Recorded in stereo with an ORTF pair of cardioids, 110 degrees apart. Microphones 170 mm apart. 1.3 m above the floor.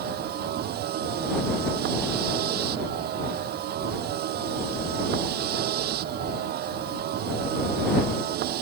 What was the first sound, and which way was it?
A vehicle, 70° right.